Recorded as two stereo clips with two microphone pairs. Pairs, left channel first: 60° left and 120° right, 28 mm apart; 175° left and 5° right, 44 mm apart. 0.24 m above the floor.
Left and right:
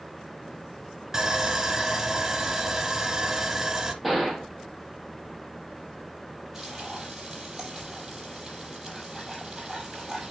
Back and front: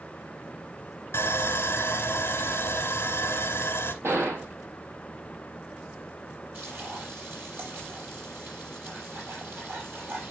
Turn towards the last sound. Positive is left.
turn(degrees=-35)